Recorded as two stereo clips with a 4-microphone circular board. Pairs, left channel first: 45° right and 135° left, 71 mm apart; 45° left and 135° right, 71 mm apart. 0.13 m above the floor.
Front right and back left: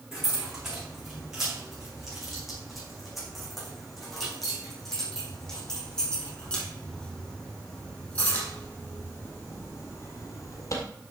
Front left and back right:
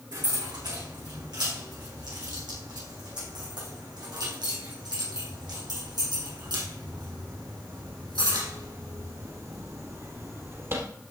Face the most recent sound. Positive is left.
turn(degrees=-85)